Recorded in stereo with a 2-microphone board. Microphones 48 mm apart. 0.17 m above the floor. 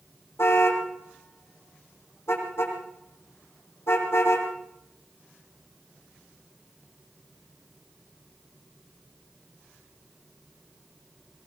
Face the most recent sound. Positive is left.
turn(degrees=60)  # may be behind; listen again after turning